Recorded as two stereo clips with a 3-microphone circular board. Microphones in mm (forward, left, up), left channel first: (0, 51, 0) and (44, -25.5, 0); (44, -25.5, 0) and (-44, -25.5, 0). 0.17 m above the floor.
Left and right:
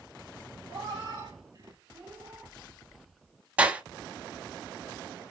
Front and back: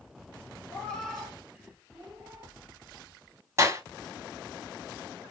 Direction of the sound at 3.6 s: 130° right.